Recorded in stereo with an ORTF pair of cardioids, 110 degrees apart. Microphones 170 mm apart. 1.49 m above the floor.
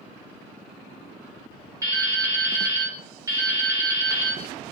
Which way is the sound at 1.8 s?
20° right.